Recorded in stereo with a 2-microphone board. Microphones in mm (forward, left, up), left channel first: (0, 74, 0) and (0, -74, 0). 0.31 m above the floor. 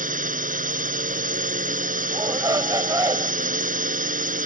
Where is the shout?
25° right (ahead or behind).